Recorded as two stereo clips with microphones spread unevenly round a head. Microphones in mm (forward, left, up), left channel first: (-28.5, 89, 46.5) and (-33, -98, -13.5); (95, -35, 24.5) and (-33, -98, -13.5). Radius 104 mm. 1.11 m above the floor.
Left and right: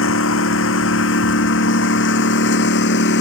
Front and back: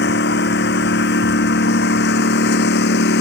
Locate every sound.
0.0 s a lawn mower: 55° left; by 3.2 s 50° left